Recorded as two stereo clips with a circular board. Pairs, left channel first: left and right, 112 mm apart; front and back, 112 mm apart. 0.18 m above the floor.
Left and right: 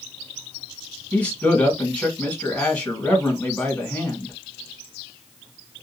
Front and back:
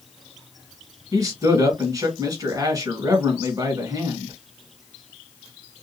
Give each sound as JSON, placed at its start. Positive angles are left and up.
{"t": 1.1, "sound": "a man speaking", "azimuth_deg": 160, "distance_m": 1.6}